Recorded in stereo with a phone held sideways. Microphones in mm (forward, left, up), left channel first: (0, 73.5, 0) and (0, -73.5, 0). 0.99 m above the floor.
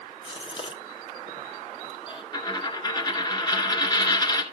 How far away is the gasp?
About 1.2 m.